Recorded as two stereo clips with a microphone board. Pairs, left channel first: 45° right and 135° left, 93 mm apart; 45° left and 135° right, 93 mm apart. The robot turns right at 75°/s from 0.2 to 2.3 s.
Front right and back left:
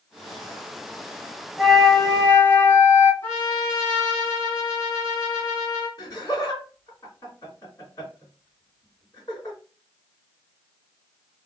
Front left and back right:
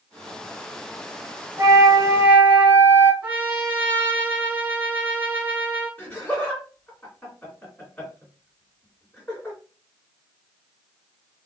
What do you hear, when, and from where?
1.6 s a flute: 135° right, 0.6 m; by 3.1 s 85° right, 0.6 m
3.2 s a trumpet: 80° right, 1.5 m
6.0 s laughter: 15° right, 2 m